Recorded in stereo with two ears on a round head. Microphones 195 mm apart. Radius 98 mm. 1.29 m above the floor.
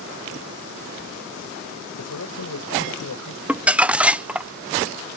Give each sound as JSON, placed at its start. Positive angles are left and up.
{"t": 2.0, "sound": "a man speaking", "side_deg": 85}
{"t": 3.5, "sound": "crumpling", "side_deg": -5}